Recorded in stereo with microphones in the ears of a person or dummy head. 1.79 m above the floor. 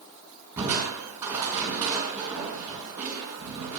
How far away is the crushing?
About 5.5 m.